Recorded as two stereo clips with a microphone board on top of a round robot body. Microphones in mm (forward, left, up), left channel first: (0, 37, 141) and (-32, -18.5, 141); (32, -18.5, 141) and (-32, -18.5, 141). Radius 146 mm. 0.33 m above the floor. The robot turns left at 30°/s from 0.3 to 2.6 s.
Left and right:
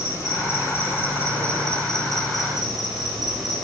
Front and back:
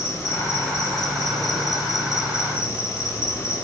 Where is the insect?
35° left, 5.5 m; by 3.6 s 35° right, 5.5 m.